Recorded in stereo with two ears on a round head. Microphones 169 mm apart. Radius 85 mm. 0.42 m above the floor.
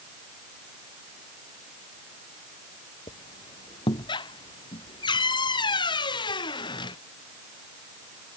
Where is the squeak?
25° left (ahead or behind).